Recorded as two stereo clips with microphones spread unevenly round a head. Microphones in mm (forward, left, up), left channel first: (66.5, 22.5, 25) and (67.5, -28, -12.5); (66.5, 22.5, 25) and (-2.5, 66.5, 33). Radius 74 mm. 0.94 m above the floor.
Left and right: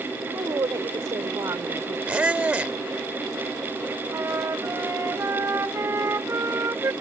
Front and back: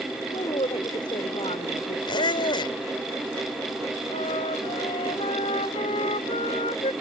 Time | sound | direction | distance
0.3 | a woman speaking | 70° right | ?
2.1 | a squeak | 15° right | ?
4.1 | a flute | 50° right | ?